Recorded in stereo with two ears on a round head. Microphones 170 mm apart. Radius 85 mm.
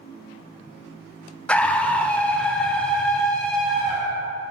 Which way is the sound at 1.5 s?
5° left (ahead or behind).